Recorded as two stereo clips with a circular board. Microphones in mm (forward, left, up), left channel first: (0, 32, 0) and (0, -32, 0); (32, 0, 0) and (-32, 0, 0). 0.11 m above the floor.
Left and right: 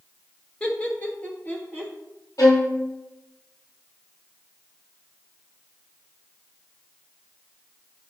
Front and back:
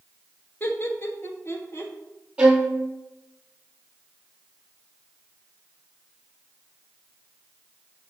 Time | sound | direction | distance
0.6 | laughter | 35° left | 1.3 m
2.4 | a violin | 110° left | 1.2 m